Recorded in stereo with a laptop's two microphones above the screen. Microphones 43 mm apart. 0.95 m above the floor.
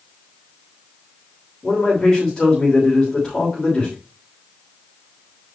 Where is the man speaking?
10° left (ahead or behind), 3 m.